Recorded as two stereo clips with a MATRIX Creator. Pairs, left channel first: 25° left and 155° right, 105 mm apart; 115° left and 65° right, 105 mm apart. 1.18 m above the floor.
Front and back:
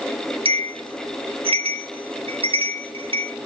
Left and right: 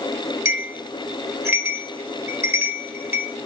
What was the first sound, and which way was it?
A bell, 130° right.